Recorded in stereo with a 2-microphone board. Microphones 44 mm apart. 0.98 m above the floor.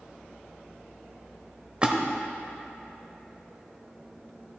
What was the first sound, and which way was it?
A splash, 25° right (ahead or behind).